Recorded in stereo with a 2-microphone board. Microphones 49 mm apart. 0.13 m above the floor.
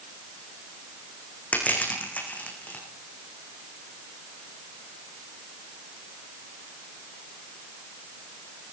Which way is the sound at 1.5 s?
30° left (ahead or behind).